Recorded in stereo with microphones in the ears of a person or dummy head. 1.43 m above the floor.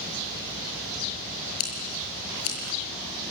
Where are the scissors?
75° left (ahead or behind), 6.5 m.